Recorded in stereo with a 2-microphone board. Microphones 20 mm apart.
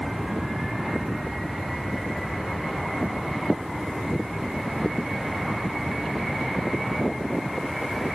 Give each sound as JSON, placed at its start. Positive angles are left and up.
{"t": 0.0, "sound": "an aircraft", "side_deg": -40}